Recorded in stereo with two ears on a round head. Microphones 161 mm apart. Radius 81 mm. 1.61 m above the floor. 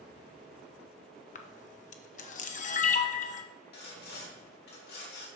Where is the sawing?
60° left (ahead or behind), 3 m.